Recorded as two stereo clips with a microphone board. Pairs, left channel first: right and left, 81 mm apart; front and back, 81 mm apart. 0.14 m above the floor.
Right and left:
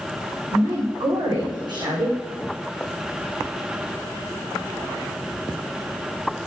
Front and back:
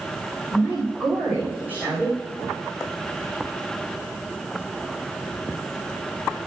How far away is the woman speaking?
About 6 m.